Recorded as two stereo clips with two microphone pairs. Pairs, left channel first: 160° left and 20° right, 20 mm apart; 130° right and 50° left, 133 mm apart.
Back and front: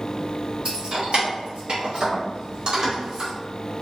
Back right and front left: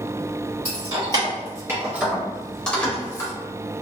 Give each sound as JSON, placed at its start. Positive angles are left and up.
{"t": 0.7, "sound": "keys jangling", "azimuth_deg": -5, "distance_m": 1.5}